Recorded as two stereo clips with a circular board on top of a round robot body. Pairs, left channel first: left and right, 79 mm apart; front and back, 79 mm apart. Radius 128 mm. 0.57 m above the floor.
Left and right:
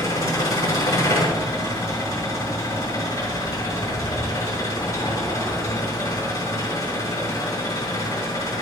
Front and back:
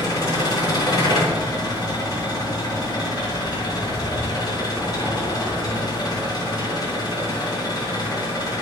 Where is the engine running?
35° left, 7.5 m.